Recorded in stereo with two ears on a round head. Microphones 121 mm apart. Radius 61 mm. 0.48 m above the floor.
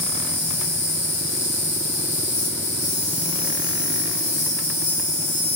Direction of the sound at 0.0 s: 50° left (ahead or behind).